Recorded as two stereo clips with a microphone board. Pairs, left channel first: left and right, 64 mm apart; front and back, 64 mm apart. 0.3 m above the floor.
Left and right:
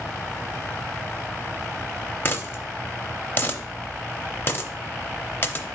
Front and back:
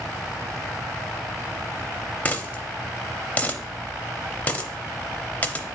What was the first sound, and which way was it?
A dropped coin, 55° left.